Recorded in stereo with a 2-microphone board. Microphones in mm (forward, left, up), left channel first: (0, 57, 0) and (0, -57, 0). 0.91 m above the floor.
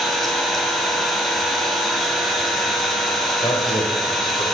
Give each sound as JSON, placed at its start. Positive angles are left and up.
{"t": 0.0, "sound": "an engine running", "side_deg": 0, "distance_m": 2.0}
{"t": 3.4, "sound": "a man speaking", "side_deg": 40, "distance_m": 3.0}